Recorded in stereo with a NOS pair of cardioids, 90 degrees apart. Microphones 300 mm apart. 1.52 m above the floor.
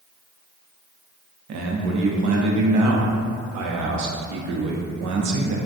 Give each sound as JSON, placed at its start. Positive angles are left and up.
{"t": 1.5, "sound": "a man speaking", "azimuth_deg": -65, "distance_m": 0.7}